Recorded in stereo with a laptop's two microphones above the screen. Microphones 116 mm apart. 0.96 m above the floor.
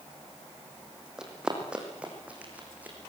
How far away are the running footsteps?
About 3 m.